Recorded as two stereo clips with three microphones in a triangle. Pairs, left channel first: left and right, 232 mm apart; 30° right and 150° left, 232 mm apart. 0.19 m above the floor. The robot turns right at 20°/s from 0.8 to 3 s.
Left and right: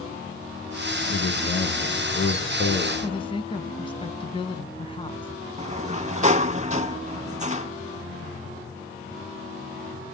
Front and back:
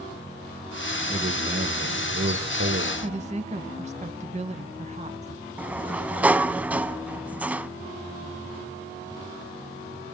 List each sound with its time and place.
1.1 s a man speaking: 100° left, 2.5 m; by 2.9 s 135° left, 2.5 m
3.0 s a woman speaking: 135° left, 1.1 m
5.6 s a sliding door: 130° right, 0.5 m